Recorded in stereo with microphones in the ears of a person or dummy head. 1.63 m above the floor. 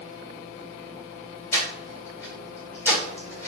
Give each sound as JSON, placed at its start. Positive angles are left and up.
{"t": 1.5, "sound": "breathing", "side_deg": 15, "distance_m": 1.9}